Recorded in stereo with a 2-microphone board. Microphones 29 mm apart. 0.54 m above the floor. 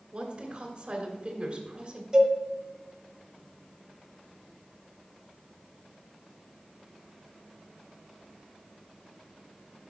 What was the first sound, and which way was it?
A woman speaking, 45° right (ahead or behind).